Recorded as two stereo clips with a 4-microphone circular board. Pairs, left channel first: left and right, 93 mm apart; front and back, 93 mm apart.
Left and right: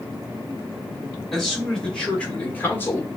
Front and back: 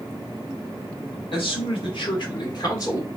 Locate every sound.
1.3 s a man speaking: 5° left, 2 m; by 3.1 s 45° left, 1.1 m